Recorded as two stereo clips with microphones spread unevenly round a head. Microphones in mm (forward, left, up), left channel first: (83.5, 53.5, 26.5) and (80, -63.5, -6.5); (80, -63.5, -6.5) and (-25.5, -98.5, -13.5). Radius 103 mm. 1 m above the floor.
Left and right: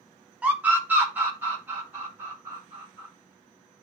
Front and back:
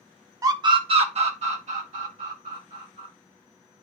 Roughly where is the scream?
Behind right.